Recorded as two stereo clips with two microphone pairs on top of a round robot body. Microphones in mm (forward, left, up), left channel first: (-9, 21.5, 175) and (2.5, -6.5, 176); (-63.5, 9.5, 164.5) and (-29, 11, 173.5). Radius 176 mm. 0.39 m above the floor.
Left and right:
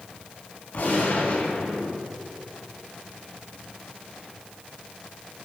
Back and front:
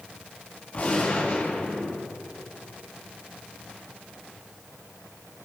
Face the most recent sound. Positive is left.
turn(degrees=150)